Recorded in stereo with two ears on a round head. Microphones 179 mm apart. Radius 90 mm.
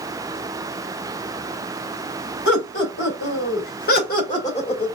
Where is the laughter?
60° left (ahead or behind), 3 m; by 4.9 s 25° left (ahead or behind), 1.4 m.